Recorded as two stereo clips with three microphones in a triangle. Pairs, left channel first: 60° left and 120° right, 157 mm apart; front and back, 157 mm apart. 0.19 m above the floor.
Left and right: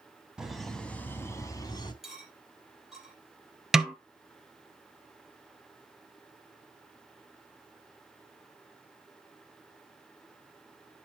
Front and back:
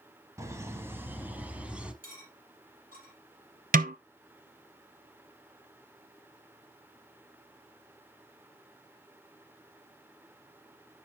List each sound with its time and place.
0.4 s laughter: 165° left, 1.3 m; by 1.9 s 100° left, 1.6 m
2.0 s cutlery clinking: 155° left, 3.5 m
3.7 s a snare drum: 155° left, 0.7 m